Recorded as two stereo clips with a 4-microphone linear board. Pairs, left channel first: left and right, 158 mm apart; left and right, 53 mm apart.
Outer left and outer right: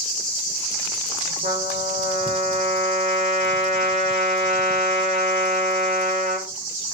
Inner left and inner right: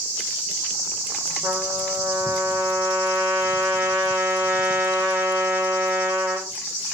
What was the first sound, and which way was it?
A trumpet, 55° right (ahead or behind).